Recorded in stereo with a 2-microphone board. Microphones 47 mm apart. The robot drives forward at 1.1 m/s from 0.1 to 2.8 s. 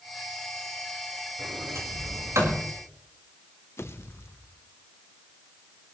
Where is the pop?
60° left (ahead or behind), 1.1 m.